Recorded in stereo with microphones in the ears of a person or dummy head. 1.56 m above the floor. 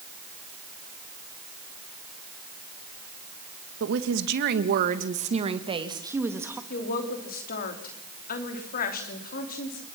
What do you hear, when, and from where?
3.8 s a woman speaking: 75° right (ahead or behind), 1.9 m; by 6.6 s 15° right (ahead or behind), 2 m
6.7 s a woman speaking: 40° left (ahead or behind), 3.5 m